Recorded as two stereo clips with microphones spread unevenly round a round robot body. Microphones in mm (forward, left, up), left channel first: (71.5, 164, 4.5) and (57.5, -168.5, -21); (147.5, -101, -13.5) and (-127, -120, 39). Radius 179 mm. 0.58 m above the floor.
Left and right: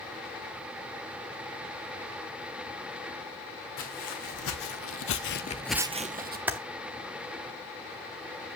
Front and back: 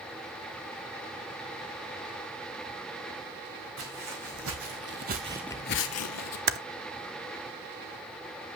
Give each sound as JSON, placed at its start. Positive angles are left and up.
{"t": 3.8, "sound": "footsteps", "azimuth_deg": 140, "distance_m": 3.0}
{"t": 6.5, "sound": "typing on a keyboard", "azimuth_deg": -160, "distance_m": 0.6}